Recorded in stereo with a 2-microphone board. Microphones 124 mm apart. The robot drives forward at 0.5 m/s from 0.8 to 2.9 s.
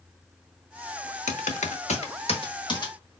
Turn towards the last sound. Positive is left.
turn(degrees=35)  # may be behind; listen again after turning